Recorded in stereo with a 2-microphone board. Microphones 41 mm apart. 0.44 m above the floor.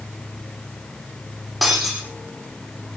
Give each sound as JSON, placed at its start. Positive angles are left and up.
{"t": 1.6, "sound": "breaking glass", "side_deg": -5, "distance_m": 7.5}